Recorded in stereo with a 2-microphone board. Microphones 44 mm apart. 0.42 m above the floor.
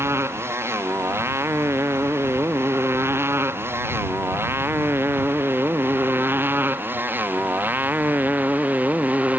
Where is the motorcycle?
80° right; by 9.4 s 35° right (ahead or behind).